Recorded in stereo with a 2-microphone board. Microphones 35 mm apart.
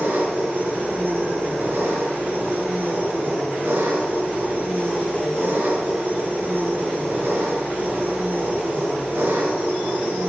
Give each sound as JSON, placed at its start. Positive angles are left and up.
{"t": 0.0, "sound": "an engine running", "side_deg": -85, "distance_m": 3.0}